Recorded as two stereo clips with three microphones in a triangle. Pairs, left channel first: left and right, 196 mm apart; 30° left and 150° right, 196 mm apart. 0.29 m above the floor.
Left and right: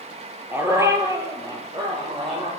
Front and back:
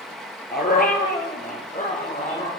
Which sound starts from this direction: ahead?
A dog barking, at 0.5 s.